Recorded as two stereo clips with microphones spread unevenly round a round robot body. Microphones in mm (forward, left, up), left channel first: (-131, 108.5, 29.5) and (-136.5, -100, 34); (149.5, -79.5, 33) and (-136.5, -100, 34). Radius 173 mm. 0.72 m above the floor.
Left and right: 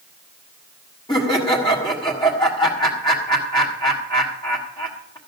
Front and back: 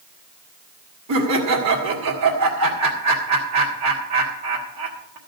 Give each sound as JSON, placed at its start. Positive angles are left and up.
{"t": 1.1, "sound": "laughter", "azimuth_deg": 155, "distance_m": 1.8}